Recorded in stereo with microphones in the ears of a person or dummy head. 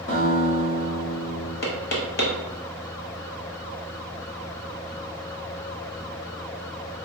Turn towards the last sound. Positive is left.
turn(degrees=50)  # may be behind; listen again after turning